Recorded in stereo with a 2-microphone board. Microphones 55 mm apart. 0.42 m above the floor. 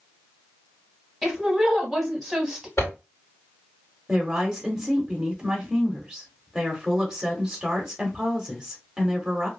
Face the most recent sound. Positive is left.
turn(degrees=-5)  # may be behind; listen again after turning